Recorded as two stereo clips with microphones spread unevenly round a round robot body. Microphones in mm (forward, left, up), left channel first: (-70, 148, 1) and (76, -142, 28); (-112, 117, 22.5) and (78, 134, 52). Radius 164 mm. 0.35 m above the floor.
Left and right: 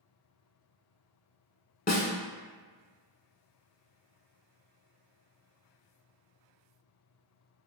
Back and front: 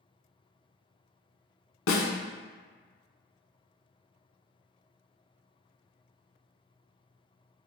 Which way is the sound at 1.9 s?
175° right.